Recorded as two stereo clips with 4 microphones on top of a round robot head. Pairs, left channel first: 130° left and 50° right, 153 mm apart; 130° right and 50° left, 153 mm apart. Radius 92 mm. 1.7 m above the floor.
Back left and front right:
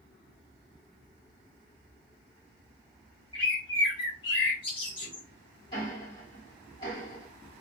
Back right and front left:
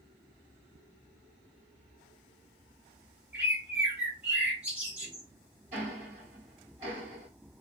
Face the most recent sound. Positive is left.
turn(degrees=80)